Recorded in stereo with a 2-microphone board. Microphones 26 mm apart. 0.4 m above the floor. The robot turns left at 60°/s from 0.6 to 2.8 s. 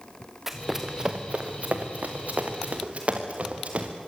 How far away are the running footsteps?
About 3 m.